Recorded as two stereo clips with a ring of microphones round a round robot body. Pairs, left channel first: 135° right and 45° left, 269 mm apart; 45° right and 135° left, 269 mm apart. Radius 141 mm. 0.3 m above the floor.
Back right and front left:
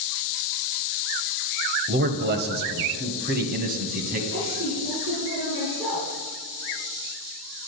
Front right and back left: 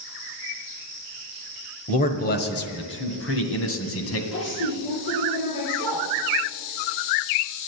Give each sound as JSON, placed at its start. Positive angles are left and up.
{"t": 1.9, "sound": "a man speaking", "azimuth_deg": 10, "distance_m": 1.2}
{"t": 4.3, "sound": "a woman speaking", "azimuth_deg": -35, "distance_m": 5.0}